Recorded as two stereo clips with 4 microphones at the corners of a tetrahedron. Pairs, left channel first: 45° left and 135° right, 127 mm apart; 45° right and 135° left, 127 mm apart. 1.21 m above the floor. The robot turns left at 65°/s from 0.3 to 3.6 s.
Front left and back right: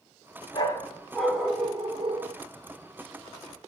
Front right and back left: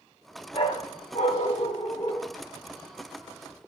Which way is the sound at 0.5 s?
Straight ahead.